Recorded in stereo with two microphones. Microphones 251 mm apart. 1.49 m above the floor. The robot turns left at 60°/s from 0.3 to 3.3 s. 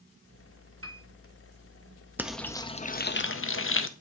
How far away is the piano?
About 1.0 m.